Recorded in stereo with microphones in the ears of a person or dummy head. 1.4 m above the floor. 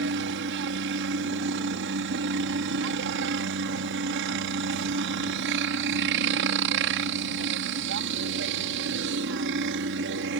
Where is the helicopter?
65° right (ahead or behind).